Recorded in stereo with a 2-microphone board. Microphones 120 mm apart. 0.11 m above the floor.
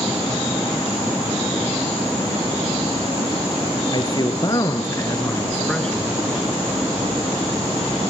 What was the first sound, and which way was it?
A man speaking, 40° left (ahead or behind).